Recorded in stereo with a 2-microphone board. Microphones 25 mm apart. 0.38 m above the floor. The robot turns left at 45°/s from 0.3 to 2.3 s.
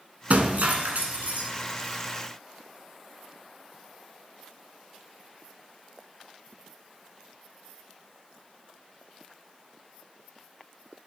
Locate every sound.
0.3 s breaking glass: 65° right, 1.4 m; by 1.5 s 120° right, 1.4 m